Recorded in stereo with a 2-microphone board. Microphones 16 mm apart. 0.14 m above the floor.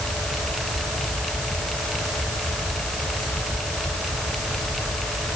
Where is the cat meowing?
I don't hear a cat meowing.